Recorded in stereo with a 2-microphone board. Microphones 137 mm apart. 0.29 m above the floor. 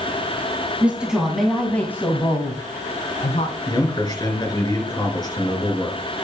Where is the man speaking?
30° left (ahead or behind), 4 m.